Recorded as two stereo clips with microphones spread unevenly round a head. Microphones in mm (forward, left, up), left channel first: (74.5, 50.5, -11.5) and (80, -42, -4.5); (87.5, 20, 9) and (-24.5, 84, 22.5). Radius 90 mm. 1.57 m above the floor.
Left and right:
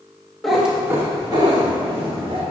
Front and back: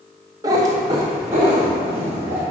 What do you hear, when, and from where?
0.4 s a cat meowing: 175° right, 0.9 m; by 2.4 s 135° right, 2.5 m